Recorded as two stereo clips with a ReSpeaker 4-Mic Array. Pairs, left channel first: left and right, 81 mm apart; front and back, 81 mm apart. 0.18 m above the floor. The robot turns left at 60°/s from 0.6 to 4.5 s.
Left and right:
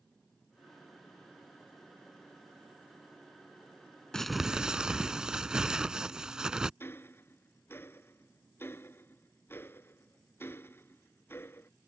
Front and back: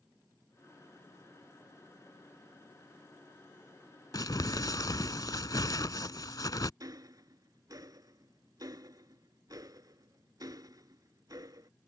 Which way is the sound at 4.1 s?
10° left.